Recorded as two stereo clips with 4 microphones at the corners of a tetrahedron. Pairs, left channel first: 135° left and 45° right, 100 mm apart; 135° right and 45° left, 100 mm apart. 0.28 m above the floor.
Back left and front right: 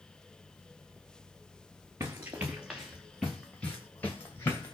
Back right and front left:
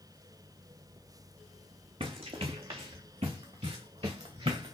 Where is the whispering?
No whispering in this recording.